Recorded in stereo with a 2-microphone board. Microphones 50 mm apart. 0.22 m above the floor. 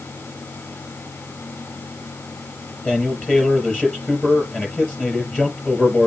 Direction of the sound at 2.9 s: 20° left (ahead or behind).